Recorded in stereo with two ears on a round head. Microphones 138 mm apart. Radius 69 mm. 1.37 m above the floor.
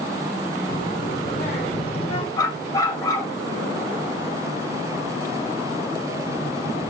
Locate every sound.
0.7 s a child speaking: 55° left (ahead or behind), 3.5 m; by 2.3 s 35° left (ahead or behind), 4.5 m
2.4 s a dog barking: 20° left (ahead or behind), 4 m